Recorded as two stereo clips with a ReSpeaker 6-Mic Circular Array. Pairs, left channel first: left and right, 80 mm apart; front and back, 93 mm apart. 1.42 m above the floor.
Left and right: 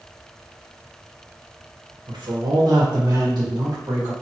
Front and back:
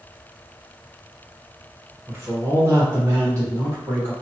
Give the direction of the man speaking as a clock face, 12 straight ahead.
4 o'clock.